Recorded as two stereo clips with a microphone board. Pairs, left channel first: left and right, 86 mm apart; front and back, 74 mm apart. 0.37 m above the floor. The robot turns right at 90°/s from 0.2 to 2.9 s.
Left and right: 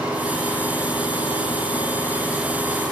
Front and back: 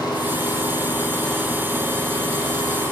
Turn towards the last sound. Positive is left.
turn(degrees=-130)